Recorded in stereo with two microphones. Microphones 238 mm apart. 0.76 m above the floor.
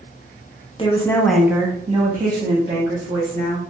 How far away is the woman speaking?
About 0.7 m.